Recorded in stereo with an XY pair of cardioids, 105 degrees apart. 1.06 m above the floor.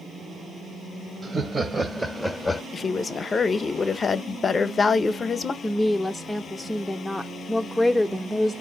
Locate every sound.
1.2 s laughter: 45° right, 0.9 m; by 2.6 s 25° left, 0.7 m
2.7 s a woman speaking: 35° left, 0.7 m
5.6 s a woman speaking: 10° left, 0.5 m